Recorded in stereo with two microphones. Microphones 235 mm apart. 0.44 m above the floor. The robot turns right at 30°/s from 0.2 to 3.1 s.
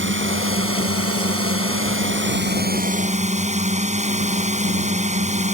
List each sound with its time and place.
0.0 s a drone: 120° right; by 5.5 s 30° right